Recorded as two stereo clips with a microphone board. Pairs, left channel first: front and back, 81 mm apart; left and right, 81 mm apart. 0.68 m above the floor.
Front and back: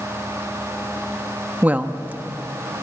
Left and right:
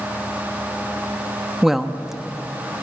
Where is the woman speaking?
170° right, 1.0 m.